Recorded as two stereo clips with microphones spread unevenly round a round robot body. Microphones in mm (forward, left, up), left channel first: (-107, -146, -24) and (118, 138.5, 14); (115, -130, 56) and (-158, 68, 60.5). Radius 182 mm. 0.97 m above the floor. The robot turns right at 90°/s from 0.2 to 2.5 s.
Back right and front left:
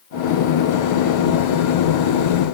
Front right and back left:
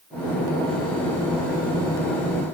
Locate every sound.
Only background noise.